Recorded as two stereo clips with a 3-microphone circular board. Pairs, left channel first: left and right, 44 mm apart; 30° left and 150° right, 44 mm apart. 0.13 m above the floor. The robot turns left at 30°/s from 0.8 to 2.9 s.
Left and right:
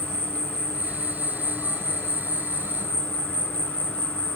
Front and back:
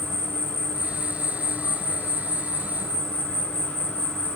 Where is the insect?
135° left, 2.0 m; by 4.4 s 70° left, 2.0 m.